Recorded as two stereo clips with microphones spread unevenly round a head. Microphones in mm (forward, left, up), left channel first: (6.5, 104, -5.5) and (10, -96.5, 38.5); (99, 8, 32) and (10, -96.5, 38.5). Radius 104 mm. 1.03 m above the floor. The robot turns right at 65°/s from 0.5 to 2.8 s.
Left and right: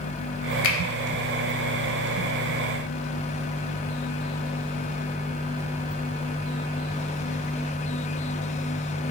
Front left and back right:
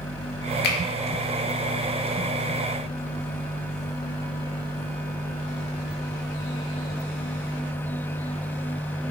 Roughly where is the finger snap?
Ahead left.